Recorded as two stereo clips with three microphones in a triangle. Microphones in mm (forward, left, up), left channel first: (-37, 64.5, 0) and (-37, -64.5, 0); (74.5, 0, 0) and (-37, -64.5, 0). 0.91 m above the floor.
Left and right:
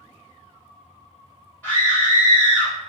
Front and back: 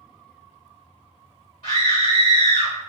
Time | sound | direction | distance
1.6 | a scream | 10° left | 1.3 m